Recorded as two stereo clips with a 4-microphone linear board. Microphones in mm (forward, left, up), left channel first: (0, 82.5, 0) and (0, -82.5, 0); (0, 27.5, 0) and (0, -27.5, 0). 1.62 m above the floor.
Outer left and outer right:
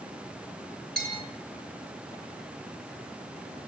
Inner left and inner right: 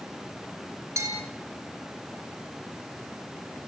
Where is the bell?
75° right (ahead or behind), 6 m.